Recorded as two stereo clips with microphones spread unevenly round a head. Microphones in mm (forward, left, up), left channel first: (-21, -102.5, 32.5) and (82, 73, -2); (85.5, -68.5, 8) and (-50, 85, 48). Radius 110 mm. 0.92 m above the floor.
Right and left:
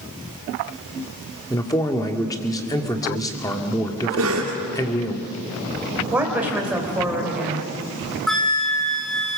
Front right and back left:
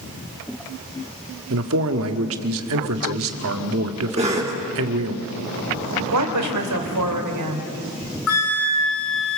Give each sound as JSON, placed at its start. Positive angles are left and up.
{"t": 1.5, "sound": "a man speaking", "azimuth_deg": 165, "distance_m": 1.8}
{"t": 4.2, "sound": "a cough", "azimuth_deg": 70, "distance_m": 3.0}
{"t": 6.1, "sound": "a woman speaking", "azimuth_deg": 145, "distance_m": 3.5}
{"t": 8.3, "sound": "a flute", "azimuth_deg": -35, "distance_m": 4.5}